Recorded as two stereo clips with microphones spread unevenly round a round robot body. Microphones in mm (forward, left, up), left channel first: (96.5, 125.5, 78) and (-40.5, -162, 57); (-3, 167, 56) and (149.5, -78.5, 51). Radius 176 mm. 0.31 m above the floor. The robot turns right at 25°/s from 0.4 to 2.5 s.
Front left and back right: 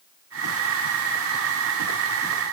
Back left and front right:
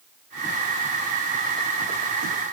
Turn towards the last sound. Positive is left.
No sound to turn to.